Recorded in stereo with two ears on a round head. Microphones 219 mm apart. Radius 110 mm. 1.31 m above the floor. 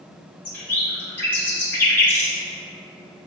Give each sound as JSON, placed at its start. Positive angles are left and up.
{"t": 0.5, "sound": "a bird", "side_deg": 10, "distance_m": 1.6}